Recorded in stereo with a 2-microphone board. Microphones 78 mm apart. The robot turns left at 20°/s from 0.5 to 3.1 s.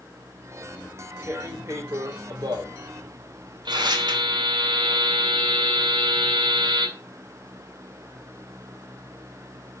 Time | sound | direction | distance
0.8 | tearing paper | 20° right (ahead or behind) | 2.5 m
3.7 | a buzzer | 80° right | 2.5 m